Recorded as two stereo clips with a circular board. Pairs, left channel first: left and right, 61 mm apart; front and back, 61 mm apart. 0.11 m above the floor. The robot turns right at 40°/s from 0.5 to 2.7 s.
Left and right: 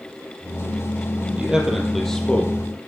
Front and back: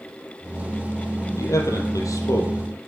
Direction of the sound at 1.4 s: 20° right.